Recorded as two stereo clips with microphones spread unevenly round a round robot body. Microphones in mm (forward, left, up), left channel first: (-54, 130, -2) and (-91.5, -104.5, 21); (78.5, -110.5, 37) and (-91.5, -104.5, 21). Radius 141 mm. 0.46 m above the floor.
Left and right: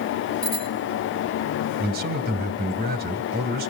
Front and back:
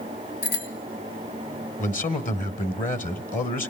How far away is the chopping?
No chopping in this recording.